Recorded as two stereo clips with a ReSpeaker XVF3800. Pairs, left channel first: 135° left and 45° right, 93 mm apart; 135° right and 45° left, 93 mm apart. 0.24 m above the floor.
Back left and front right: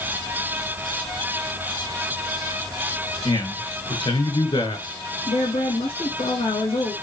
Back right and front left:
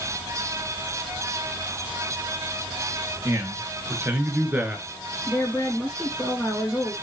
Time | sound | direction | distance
3.2 | a man speaking | 100° left | 3.5 m
5.3 | a woman speaking | 135° left | 7.5 m